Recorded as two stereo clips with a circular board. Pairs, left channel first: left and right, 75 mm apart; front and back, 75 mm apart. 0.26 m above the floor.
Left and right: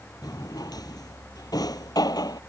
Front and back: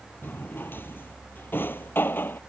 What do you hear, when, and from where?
0.2 s a drawer: 65° left